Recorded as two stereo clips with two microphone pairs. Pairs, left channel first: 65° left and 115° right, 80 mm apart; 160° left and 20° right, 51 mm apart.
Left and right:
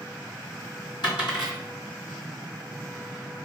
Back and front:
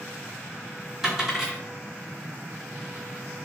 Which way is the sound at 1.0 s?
65° left.